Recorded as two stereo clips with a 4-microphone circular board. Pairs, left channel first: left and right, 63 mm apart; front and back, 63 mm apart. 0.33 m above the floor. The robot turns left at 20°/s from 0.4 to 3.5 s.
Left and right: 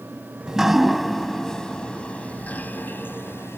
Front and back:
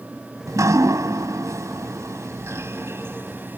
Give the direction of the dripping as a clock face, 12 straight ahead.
6 o'clock.